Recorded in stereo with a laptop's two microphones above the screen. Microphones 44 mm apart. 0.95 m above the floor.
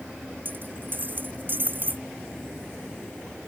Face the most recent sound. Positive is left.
turn(degrees=-45)  # may be behind; listen again after turning